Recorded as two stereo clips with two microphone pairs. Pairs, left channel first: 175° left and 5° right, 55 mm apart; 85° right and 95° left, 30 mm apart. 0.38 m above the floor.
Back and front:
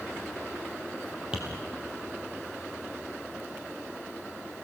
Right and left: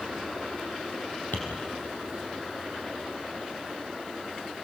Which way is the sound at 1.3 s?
75° right.